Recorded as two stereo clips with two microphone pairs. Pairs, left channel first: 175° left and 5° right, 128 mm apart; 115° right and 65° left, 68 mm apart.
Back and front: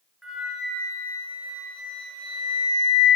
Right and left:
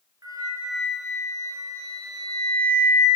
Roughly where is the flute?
Left.